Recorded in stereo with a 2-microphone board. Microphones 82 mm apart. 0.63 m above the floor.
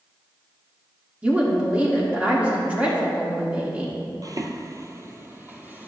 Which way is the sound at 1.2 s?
15° right (ahead or behind).